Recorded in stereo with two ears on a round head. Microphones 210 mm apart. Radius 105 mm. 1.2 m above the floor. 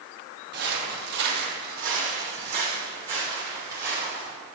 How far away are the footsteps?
About 1.9 m.